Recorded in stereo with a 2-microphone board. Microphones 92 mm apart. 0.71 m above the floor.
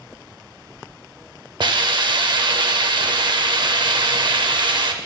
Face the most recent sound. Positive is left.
turn(degrees=-60)  # may be behind; listen again after turning